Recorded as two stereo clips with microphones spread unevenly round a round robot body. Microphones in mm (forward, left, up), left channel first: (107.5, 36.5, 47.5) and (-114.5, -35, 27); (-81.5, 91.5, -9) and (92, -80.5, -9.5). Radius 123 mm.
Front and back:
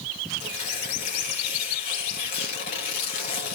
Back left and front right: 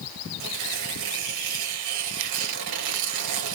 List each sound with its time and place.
0.4 s tearing paper: 40° right, 3 m